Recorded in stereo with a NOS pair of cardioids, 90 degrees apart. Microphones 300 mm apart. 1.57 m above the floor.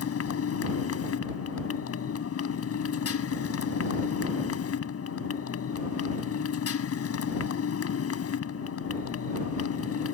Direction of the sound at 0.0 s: 50° left.